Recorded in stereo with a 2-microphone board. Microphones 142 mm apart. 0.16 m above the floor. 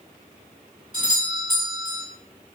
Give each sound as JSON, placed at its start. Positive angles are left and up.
{"t": 0.9, "sound": "a doorbell", "side_deg": -30, "distance_m": 2.0}